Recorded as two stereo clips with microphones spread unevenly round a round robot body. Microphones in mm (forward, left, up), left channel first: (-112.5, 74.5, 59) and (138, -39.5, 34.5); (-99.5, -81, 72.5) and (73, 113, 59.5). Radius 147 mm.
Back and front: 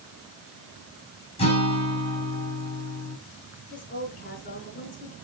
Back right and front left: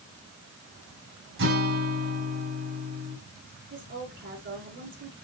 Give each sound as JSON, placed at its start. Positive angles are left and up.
{"t": 1.4, "sound": "a guitar", "azimuth_deg": 85, "distance_m": 5.0}
{"t": 3.7, "sound": "a woman speaking", "azimuth_deg": 95, "distance_m": 5.0}